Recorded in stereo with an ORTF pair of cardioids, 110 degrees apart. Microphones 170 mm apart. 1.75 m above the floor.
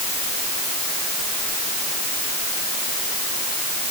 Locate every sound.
Only background noise.